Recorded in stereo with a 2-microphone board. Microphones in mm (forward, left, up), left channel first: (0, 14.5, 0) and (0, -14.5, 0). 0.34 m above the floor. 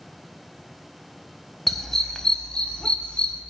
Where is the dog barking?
5° left (ahead or behind), 0.8 m; by 3.4 s 45° left (ahead or behind), 1.5 m.